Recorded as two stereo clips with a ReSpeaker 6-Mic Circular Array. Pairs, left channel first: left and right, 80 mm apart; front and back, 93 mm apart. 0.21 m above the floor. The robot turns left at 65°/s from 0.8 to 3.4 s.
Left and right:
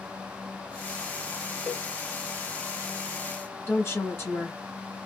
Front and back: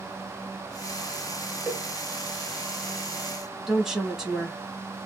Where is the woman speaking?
100° left, 1.2 m.